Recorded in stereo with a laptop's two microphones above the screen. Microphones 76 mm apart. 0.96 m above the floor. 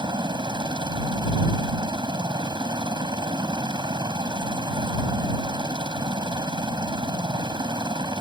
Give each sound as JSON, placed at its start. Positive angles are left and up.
{"t": 0.0, "sound": "a helicopter", "side_deg": -70}